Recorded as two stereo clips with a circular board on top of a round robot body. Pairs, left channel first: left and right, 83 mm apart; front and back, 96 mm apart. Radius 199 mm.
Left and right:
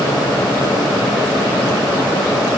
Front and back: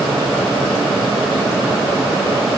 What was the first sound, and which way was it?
Only background noise.